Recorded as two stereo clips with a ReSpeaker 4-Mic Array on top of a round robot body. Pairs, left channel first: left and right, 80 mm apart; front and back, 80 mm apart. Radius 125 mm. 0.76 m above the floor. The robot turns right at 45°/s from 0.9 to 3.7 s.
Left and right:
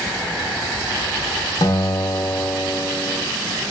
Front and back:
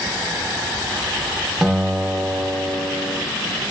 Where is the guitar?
95° left, 0.7 m; by 3.2 s 165° left, 0.7 m.